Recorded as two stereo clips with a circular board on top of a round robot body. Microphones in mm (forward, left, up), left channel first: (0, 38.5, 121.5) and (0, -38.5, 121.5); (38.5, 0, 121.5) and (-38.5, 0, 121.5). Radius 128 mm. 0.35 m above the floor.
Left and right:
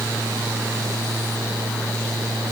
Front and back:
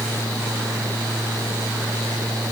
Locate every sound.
Only background noise.